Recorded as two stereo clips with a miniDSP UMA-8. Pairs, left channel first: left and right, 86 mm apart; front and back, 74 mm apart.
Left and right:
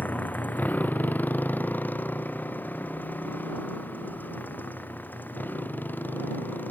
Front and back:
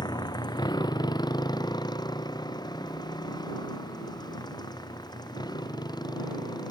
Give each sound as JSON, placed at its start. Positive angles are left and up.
{"t": 0.0, "sound": "a motorcycle", "azimuth_deg": 20}